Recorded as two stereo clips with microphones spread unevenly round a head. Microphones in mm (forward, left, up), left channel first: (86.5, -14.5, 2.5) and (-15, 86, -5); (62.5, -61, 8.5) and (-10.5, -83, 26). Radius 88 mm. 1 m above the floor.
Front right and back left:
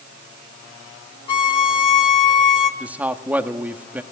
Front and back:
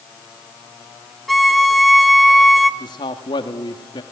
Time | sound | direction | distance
1.3 | a violin | 85° right | 0.9 m
2.8 | a man speaking | 55° left | 1.6 m